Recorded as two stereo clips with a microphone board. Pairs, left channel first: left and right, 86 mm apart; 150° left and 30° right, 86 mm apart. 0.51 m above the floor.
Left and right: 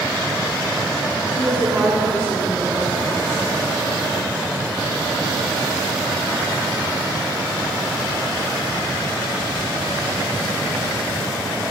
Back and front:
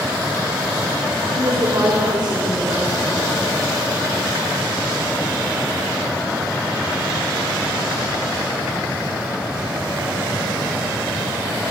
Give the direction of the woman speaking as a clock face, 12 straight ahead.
1 o'clock.